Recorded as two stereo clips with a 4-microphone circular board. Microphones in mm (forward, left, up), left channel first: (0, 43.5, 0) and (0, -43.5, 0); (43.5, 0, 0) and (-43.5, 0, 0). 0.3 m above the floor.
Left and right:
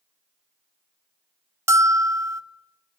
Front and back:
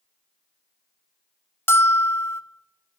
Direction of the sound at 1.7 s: 50° right.